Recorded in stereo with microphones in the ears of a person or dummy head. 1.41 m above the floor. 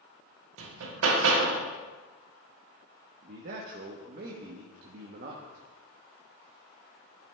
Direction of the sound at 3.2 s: 55° right (ahead or behind).